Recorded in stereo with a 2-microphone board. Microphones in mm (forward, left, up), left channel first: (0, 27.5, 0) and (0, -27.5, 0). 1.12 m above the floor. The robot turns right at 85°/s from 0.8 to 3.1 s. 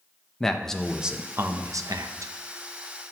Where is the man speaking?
170° left, 0.6 m; by 2.3 s 60° right, 0.6 m.